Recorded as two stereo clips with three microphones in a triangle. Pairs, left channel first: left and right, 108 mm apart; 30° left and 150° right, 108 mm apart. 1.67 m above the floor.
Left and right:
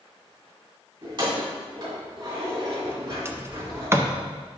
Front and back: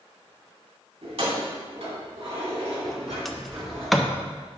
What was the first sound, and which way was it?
Keys jangling, 130° right.